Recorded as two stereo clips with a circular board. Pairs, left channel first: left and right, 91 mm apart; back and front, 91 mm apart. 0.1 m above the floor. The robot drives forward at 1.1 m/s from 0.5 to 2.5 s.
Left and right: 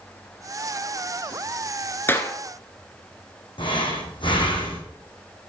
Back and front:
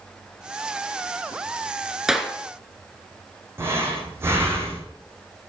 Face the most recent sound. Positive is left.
turn(degrees=65)